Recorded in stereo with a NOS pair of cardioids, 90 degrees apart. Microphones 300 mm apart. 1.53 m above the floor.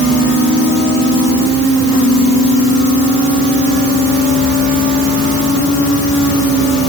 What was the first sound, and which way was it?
Only background noise.